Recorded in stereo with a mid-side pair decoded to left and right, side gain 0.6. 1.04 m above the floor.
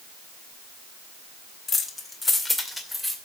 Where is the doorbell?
I don't hear a doorbell.